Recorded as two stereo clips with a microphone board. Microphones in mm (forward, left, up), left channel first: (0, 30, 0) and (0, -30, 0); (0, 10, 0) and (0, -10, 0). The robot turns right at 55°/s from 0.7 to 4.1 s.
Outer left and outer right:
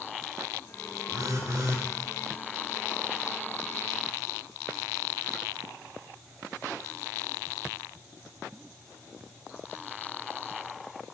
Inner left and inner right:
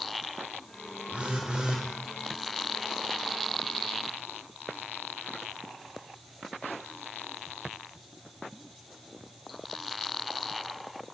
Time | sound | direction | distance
1.1 | a phone buzzing | 90° right | 1.5 m